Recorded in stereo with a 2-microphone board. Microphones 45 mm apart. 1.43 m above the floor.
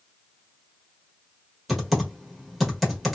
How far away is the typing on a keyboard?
About 1.2 m.